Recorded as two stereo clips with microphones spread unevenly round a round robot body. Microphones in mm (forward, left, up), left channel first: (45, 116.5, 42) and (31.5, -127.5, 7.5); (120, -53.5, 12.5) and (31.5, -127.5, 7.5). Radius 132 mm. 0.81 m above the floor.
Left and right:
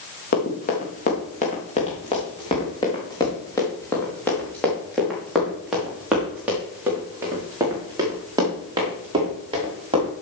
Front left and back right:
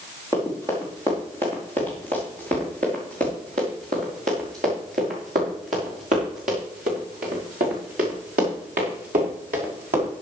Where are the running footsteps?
140° left, 4 m; by 10.1 s 165° right, 6.5 m.